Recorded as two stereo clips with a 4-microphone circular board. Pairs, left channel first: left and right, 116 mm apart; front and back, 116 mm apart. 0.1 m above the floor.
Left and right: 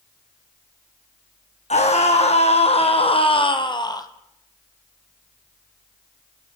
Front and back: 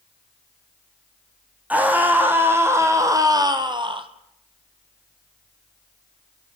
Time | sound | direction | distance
1.7 | a scream | 105° left | 5.5 m